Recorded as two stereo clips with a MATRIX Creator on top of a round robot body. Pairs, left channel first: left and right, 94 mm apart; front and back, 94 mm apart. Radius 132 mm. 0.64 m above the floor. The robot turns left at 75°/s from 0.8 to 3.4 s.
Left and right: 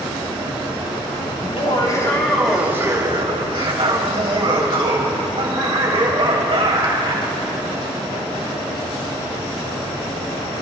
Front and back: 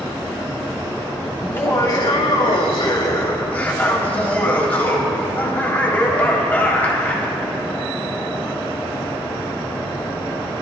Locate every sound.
1.4 s laughter: 75° left, 3.5 m; by 7.3 s 75° right, 3.5 m